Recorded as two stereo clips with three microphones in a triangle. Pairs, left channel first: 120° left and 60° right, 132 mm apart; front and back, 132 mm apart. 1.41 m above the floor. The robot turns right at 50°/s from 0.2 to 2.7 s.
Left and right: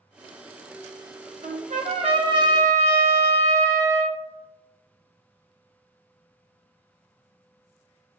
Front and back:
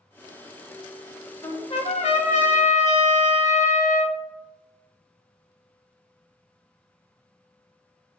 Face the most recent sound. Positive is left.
turn(degrees=5)